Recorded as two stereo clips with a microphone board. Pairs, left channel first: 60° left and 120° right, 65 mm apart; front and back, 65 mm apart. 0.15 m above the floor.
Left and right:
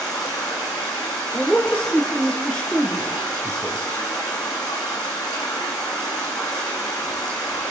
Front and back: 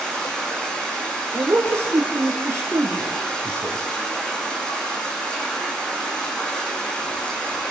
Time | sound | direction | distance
0.0 | running water | 70° left | 5 m
1.3 | a man speaking | 135° left | 3.5 m